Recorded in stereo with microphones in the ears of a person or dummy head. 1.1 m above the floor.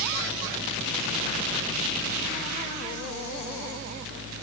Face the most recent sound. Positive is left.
No sound to turn to.